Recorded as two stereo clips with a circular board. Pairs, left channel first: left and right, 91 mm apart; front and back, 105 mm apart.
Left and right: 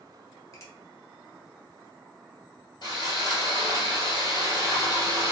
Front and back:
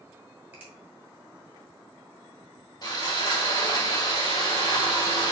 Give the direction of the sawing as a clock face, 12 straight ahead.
10 o'clock.